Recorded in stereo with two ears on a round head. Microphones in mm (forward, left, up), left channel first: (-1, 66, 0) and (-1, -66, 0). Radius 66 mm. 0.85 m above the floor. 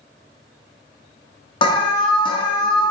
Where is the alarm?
35° left (ahead or behind), 0.6 m.